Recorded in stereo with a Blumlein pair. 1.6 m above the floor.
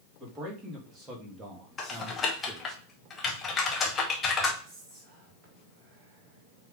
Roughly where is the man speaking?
Ahead.